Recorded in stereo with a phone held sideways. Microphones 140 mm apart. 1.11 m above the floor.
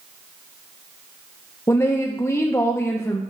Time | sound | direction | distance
1.7 | a woman speaking | 20° left (ahead or behind) | 0.5 m